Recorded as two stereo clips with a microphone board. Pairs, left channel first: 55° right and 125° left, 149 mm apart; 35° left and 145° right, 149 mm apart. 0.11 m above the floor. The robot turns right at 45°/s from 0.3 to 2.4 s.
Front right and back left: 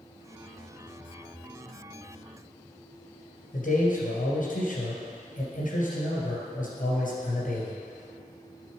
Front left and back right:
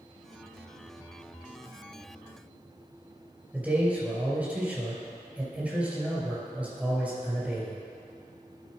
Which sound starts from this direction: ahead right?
A man speaking, at 3.5 s.